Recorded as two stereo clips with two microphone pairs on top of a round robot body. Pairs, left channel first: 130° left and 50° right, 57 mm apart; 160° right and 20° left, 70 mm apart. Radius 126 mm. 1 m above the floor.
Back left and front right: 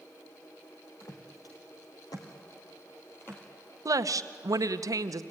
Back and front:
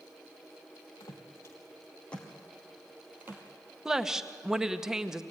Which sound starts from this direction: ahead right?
A woman speaking, at 3.9 s.